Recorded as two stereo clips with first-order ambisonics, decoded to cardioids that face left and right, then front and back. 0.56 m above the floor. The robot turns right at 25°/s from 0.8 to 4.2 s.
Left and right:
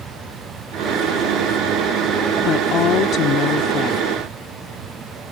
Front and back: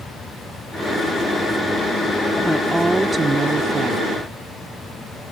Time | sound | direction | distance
2.4 | a woman speaking | 90° left | ?